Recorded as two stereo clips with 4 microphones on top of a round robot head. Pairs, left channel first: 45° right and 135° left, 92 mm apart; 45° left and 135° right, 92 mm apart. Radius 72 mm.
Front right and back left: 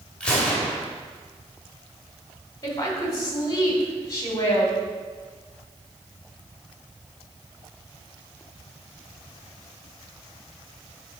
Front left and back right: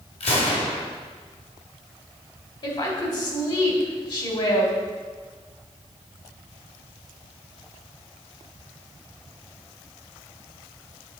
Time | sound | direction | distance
0.2 | a gunshot | 35° left | 2 m
2.6 | a woman speaking | 10° left | 2 m